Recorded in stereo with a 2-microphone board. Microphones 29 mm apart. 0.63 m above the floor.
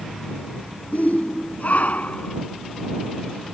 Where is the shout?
60° left (ahead or behind); by 2.4 s 55° left (ahead or behind).